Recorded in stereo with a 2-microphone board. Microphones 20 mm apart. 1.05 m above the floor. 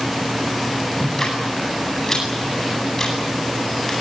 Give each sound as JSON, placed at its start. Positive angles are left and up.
{"t": 1.0, "sound": "ticking", "side_deg": 25, "distance_m": 9.0}